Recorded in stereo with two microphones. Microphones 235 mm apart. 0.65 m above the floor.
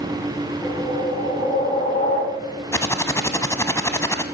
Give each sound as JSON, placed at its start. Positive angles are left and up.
{"t": 0.6, "sound": "a whoosh", "side_deg": 30, "distance_m": 3.5}
{"t": 2.7, "sound": "typing on a keyboard", "side_deg": 10, "distance_m": 0.8}